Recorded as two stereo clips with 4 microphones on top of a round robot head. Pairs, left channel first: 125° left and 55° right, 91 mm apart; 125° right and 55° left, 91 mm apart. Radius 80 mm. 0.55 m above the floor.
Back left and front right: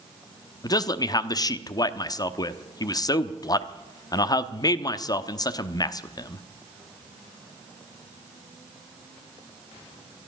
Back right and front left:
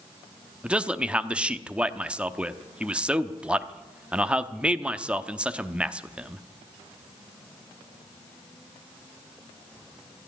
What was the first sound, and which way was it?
A man speaking, 125° left.